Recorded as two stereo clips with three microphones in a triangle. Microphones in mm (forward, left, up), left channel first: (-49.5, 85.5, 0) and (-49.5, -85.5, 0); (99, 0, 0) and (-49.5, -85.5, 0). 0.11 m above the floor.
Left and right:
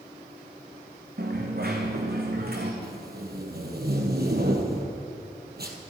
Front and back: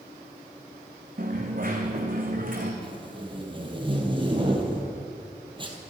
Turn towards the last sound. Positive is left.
turn(degrees=-90)